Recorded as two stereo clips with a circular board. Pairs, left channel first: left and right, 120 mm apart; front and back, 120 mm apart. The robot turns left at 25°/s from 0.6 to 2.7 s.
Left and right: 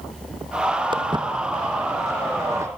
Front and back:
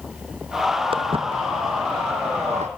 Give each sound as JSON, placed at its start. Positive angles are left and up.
{"t": 0.9, "sound": "footsteps", "azimuth_deg": -140, "distance_m": 1.9}